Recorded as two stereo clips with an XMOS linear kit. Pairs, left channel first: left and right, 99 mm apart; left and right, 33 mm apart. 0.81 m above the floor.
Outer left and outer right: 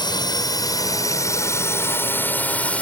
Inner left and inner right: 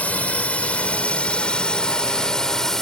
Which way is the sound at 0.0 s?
45° left (ahead or behind).